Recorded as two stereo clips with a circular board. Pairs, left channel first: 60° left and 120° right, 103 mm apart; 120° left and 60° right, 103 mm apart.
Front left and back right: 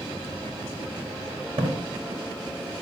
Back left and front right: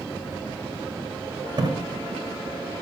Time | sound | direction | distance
1.6 | a splash | 100° right | 2.5 m